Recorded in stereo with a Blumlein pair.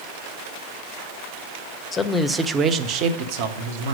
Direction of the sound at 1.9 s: 15° left.